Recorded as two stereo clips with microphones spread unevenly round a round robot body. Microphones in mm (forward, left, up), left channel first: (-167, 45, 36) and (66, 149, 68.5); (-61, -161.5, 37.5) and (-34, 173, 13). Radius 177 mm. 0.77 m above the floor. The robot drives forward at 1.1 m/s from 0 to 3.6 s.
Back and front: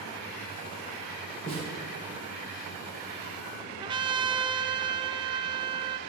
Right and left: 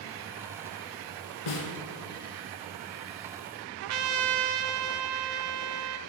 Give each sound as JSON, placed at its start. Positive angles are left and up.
{"t": 1.5, "sound": "a snare drum", "azimuth_deg": -80, "distance_m": 1.8}
{"t": 3.8, "sound": "a trumpet", "azimuth_deg": 90, "distance_m": 0.6}